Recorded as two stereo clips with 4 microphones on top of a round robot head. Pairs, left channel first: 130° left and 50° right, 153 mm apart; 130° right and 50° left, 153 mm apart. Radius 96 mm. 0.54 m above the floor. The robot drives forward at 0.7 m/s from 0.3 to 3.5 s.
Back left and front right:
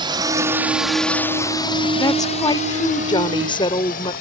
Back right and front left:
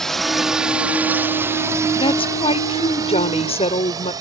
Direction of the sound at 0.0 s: 45° right.